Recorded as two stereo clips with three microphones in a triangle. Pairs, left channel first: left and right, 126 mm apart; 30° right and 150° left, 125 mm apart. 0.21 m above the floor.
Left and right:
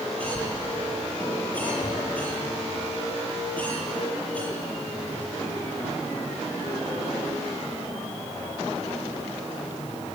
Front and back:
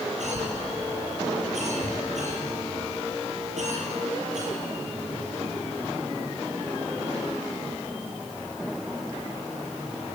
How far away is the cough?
About 7 m.